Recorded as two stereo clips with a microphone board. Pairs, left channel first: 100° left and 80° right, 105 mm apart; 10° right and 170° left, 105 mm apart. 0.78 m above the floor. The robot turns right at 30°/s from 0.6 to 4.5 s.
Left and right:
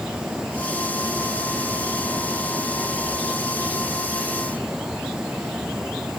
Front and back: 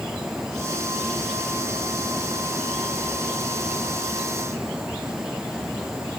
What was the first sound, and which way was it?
Only background noise.